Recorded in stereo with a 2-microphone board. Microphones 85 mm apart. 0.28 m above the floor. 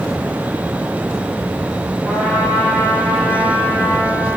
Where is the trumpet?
15° left (ahead or behind), 5 m.